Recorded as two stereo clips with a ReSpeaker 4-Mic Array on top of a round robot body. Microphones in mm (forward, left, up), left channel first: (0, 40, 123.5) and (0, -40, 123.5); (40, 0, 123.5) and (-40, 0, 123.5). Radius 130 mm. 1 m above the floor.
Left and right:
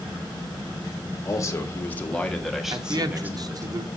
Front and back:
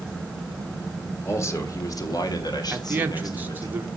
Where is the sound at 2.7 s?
115° right, 1.0 m.